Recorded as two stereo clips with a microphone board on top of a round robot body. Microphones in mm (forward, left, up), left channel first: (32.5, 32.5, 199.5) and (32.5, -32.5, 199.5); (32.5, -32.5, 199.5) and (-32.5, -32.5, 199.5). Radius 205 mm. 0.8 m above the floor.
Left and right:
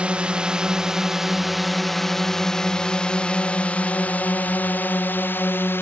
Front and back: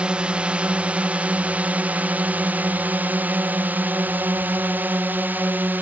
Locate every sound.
0.0 s a drone: 130° right; by 5.8 s 130° left